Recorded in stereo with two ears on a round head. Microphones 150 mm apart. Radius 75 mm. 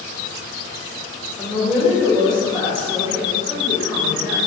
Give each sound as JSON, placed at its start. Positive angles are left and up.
{"t": 1.4, "sound": "a woman speaking", "side_deg": -10, "distance_m": 1.2}